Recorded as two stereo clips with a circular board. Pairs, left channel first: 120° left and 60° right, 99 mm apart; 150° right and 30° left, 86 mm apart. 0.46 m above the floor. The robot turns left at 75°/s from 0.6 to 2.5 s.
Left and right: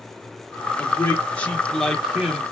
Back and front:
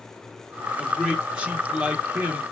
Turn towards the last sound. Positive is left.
turn(degrees=-5)